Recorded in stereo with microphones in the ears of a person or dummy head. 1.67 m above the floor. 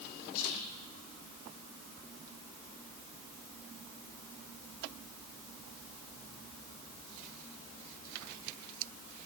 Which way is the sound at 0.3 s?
85° left.